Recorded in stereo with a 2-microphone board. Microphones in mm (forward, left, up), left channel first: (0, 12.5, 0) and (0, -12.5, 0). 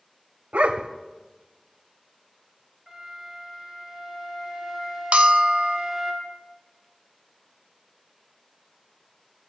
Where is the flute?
5° right (ahead or behind), 3.5 m.